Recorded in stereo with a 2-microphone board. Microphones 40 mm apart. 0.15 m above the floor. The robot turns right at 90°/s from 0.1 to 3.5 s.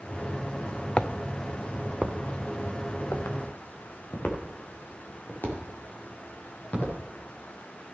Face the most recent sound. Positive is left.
turn(degrees=45)  # may be behind; listen again after turning